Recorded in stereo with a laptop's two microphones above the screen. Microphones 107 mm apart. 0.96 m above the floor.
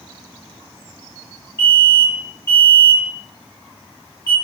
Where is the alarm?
20° left (ahead or behind), 1.0 m.